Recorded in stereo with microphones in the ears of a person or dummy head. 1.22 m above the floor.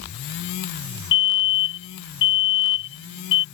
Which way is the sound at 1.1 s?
65° left (ahead or behind).